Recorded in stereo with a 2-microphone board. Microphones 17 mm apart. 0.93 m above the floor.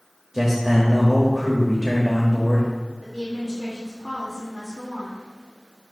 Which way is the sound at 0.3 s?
15° right (ahead or behind).